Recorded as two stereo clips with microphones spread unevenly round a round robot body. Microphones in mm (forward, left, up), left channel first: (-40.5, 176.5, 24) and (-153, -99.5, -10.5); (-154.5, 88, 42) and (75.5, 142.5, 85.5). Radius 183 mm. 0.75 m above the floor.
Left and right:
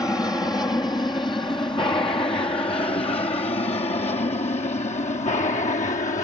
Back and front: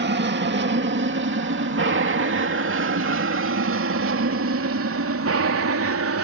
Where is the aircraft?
15° right; by 6.2 s 5° right.